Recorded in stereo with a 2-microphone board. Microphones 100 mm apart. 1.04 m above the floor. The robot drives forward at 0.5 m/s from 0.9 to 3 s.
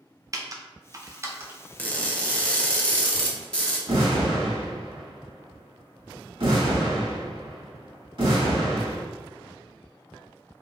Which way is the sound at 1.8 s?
15° left (ahead or behind).